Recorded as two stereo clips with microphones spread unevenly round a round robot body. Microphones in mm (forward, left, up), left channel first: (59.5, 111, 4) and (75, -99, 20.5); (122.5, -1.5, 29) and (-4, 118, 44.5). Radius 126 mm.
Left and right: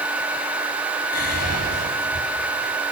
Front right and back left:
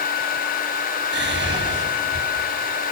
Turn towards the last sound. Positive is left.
turn(degrees=125)